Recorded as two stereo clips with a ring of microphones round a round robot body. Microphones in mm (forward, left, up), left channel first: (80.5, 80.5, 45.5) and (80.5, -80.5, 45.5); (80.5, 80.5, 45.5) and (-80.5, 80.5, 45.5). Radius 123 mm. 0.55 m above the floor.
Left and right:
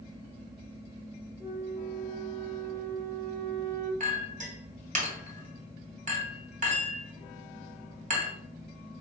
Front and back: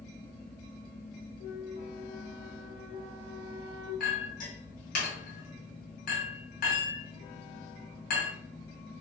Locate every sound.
1.4 s a flute: 20° right, 2 m
4.0 s a clink: 50° right, 2 m